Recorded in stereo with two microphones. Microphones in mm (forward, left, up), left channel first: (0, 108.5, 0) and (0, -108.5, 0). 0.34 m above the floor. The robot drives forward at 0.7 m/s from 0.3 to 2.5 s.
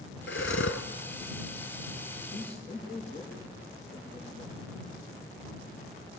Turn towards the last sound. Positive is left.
turn(degrees=30)  # may be behind; listen again after turning